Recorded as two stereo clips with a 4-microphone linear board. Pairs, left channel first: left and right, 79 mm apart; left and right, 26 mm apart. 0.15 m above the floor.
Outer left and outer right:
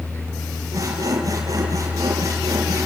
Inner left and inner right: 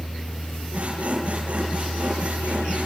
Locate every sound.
0.7 s sawing: 45° right (ahead or behind), 4.5 m